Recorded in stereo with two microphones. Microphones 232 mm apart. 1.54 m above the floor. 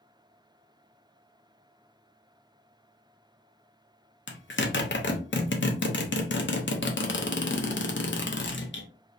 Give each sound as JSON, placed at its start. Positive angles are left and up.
{"t": 4.3, "sound": "a zipper", "side_deg": 55, "distance_m": 0.5}